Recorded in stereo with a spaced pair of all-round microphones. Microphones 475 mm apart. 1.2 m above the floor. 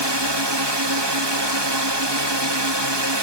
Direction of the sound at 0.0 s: 55° right (ahead or behind).